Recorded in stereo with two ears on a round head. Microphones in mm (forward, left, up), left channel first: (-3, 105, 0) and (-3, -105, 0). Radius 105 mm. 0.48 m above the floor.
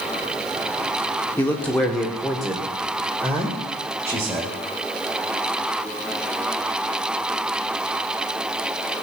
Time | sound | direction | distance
1.4 | a man speaking | 10° left (ahead or behind) | 1.5 m